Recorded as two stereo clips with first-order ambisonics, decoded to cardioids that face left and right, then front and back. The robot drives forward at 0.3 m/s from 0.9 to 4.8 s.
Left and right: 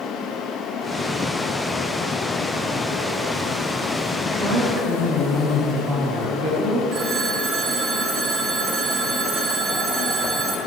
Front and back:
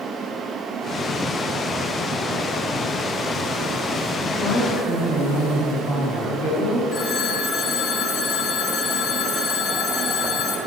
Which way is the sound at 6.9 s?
55° right.